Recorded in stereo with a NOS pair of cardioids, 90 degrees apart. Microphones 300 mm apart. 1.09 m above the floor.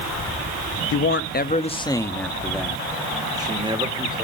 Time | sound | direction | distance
0.9 | a man speaking | 55° left | 1.2 m